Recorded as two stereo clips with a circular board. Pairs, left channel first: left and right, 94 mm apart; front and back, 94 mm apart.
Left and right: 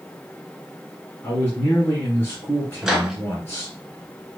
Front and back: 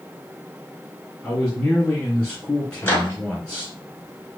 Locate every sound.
1.2 s a man speaking: 65° left, 1.8 m
2.8 s a microwave: 15° right, 0.9 m